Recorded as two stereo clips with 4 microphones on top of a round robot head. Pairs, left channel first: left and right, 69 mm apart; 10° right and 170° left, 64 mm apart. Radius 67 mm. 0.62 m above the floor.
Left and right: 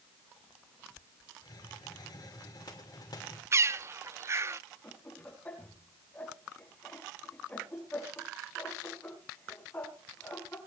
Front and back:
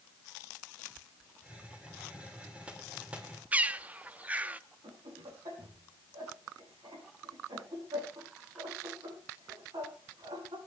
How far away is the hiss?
About 2.5 m.